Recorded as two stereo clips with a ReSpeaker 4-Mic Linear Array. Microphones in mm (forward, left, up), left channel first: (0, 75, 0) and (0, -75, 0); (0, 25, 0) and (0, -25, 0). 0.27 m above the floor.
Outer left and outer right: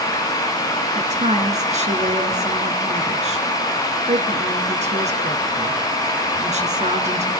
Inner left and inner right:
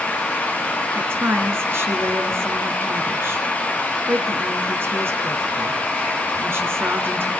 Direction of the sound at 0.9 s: 50° right (ahead or behind).